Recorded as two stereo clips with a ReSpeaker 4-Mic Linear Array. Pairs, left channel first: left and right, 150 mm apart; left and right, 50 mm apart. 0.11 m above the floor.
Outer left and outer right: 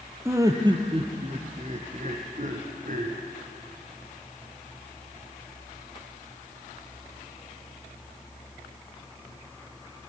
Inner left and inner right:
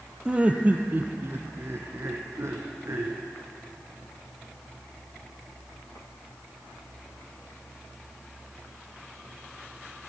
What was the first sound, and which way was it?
Laughter, 20° right (ahead or behind).